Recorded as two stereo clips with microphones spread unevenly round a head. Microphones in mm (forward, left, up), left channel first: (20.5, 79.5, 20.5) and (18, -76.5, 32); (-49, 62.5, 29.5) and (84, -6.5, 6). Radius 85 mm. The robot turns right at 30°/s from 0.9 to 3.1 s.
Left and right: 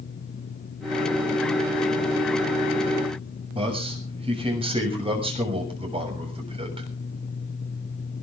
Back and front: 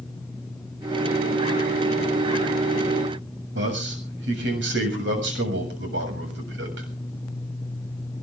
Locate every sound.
3.5 s a man speaking: 35° right, 7 m